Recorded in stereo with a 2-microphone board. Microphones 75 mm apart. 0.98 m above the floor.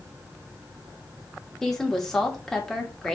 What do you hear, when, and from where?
1.6 s a woman speaking: 5° left (ahead or behind), 2.0 m